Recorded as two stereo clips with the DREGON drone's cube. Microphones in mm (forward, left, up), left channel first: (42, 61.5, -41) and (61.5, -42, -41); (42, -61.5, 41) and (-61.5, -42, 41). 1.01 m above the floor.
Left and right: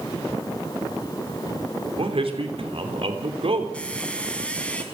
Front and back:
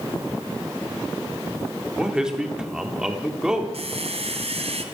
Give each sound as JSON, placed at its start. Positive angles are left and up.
{"t": 2.0, "sound": "a man speaking", "azimuth_deg": -105, "distance_m": 3.0}
{"t": 3.7, "sound": "a squeak", "azimuth_deg": 180, "distance_m": 2.5}